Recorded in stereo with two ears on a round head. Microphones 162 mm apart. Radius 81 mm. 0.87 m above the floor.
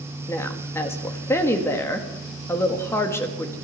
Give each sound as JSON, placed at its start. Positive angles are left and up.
{"t": 0.3, "sound": "a woman speaking", "side_deg": 15, "distance_m": 1.6}